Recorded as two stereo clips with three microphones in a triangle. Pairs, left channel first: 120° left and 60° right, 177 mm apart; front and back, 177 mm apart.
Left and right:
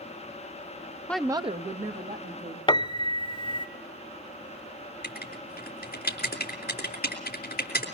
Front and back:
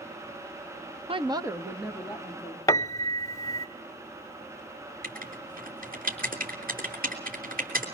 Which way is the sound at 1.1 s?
165° right.